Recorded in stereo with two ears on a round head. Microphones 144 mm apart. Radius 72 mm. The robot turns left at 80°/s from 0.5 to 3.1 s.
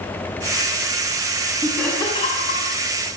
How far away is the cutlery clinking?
I don't hear cutlery clinking.